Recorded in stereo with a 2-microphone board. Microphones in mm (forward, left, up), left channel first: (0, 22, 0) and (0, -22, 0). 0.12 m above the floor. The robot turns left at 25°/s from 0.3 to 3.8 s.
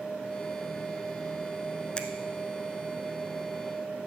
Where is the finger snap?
20° left (ahead or behind), 0.9 m.